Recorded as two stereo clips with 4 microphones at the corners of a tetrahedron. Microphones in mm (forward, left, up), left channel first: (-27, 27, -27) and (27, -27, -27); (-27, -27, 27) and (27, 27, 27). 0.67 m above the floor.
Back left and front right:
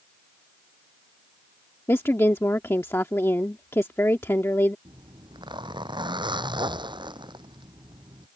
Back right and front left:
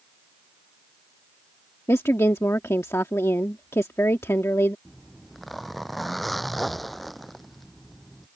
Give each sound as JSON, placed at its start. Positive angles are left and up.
{"t": 1.9, "sound": "a woman speaking", "azimuth_deg": 180}
{"t": 4.8, "sound": "a zipper", "azimuth_deg": -45}